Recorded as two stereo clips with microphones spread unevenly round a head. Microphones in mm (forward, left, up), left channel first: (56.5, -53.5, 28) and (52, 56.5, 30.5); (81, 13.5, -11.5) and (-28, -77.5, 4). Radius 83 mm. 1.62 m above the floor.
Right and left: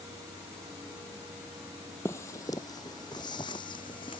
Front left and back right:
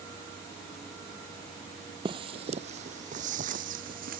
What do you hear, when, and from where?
2.0 s footsteps: 155° right; by 4.2 s 150° right